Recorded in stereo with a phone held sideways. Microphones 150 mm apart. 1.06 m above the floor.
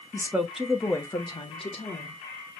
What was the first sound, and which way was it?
A woman speaking, 20° right (ahead or behind).